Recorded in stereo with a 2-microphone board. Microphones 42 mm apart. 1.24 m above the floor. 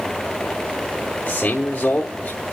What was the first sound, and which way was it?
A man speaking, 60° left (ahead or behind).